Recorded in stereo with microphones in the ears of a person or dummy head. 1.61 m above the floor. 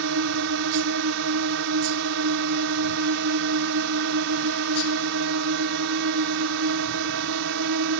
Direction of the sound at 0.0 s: 50° right (ahead or behind).